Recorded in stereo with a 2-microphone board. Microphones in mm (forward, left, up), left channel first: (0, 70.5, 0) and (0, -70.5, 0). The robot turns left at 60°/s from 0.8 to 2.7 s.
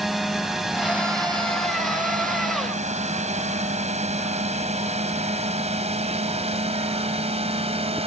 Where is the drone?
Centre (ahead or behind); by 8.1 s 45° right (ahead or behind).